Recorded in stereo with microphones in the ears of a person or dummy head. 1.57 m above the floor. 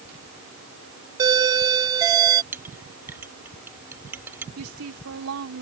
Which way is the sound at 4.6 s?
85° right.